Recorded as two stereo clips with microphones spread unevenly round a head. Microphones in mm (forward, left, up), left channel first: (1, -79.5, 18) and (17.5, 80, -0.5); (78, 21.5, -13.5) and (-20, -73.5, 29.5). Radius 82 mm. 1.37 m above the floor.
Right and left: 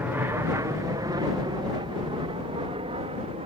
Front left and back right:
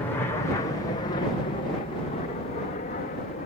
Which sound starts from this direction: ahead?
An aircraft, at 0.0 s.